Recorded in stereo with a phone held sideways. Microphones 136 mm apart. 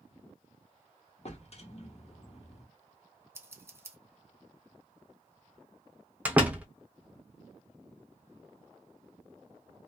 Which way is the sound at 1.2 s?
50° left (ahead or behind).